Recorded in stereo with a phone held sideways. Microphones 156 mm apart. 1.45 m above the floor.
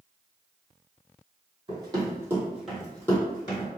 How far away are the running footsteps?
About 1.9 m.